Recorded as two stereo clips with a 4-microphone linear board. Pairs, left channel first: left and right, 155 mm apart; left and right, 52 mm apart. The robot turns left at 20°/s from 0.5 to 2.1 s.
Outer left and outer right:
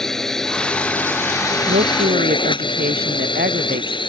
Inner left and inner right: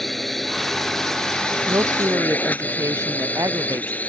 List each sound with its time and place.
0.0 s a drone: 175° left; by 4.1 s 145° left
1.7 s a woman speaking: 75° right (ahead or behind); by 4.0 s 80° right